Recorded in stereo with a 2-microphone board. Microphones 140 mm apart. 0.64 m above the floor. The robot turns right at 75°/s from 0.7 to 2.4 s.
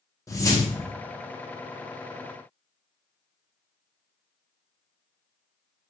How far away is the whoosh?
About 0.6 m.